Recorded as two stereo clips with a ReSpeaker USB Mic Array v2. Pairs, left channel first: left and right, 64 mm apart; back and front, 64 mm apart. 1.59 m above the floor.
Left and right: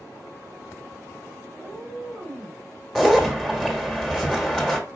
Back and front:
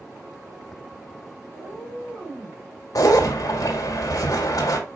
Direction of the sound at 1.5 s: 35° right.